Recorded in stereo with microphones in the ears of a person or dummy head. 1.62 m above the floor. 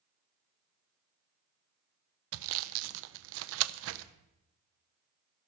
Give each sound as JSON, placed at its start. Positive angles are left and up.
{"t": 2.3, "sound": "sawing", "side_deg": -70, "distance_m": 0.6}